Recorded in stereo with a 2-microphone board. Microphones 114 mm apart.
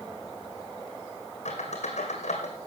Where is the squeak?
80° left, 2 m.